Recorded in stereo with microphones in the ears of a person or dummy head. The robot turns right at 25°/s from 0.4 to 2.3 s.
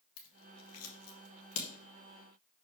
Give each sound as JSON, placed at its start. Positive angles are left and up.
{"t": 0.2, "sound": "scissors", "side_deg": 75, "distance_m": 1.5}